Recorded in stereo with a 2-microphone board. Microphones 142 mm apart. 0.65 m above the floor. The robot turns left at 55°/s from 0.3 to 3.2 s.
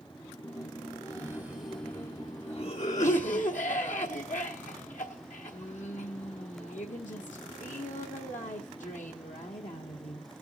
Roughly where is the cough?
Behind right.